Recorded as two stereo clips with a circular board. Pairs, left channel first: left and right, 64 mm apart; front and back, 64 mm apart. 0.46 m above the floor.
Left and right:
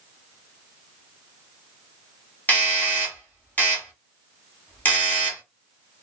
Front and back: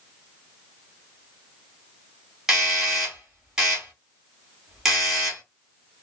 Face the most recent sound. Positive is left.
turn(degrees=105)